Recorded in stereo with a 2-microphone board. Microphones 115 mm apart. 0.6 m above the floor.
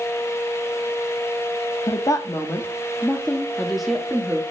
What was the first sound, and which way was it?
A woman speaking, 30° left (ahead or behind).